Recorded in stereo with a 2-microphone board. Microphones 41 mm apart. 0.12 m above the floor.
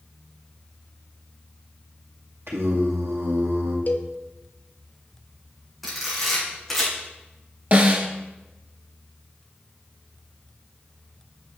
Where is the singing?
75° right (ahead or behind), 2 m.